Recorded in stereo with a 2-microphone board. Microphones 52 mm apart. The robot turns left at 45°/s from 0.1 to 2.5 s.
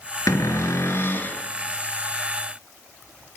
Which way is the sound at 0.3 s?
85° left.